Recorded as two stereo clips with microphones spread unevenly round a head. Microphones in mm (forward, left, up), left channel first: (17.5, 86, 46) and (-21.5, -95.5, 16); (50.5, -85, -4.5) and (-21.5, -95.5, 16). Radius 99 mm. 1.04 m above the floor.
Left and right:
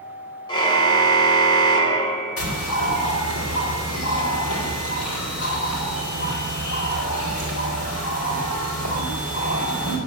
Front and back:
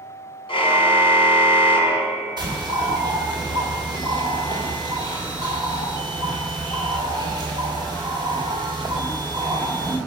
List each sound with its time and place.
0.5 s a car horn: 10° left, 2.5 m
2.4 s a bird: 75° left, 4.5 m